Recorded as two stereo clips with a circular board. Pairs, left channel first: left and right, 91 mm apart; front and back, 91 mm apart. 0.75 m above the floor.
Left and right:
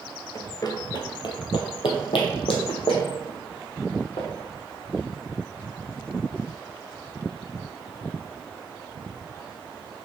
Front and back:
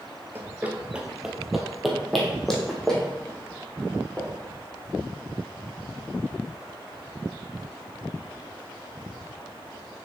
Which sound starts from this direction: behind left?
Running footsteps, at 0.3 s.